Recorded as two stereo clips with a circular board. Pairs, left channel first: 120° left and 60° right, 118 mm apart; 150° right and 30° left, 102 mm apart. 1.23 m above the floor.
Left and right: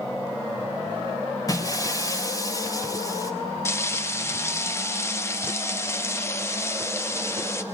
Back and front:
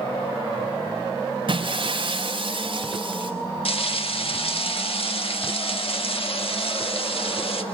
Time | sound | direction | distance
1.5 | breaking glass | 60° left | 3 m
3.6 | frying | 170° right | 1.6 m